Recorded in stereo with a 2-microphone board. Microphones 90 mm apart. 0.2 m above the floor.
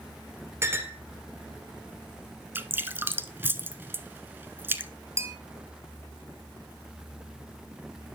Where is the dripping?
25° right (ahead or behind), 0.9 m.